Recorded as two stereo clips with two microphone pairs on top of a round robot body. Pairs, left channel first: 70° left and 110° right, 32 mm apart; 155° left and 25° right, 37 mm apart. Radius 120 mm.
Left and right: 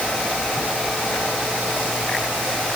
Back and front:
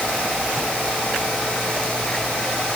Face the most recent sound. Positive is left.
No sound to turn to.